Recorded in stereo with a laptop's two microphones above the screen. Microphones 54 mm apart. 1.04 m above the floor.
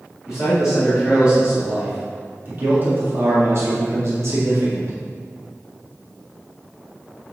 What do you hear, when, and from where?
0.2 s a man speaking: 10° right (ahead or behind), 2.5 m; by 4.9 s 70° right (ahead or behind), 3 m